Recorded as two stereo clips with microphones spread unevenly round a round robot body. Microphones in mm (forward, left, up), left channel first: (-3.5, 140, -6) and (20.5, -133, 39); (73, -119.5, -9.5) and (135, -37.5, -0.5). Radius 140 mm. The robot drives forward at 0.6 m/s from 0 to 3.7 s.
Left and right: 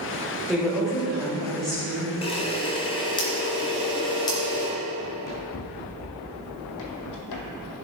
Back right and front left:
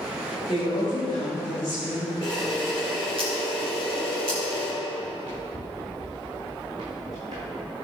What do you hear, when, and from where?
0.5 s a woman speaking: straight behind, 2 m
2.2 s a camera shutter: 165° left, 1.9 m; by 4.7 s 170° left, 2.5 m
5.0 s running footsteps: 120° left, 3 m; by 7.7 s 115° left, 1.3 m